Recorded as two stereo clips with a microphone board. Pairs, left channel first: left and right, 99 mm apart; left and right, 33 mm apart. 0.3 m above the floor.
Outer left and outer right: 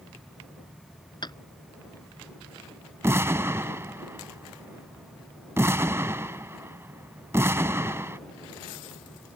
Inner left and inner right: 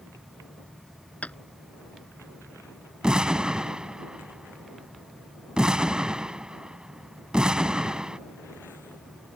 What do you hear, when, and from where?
1.2 s tapping: 45° left (ahead or behind)
3.0 s an explosion: 25° right (ahead or behind)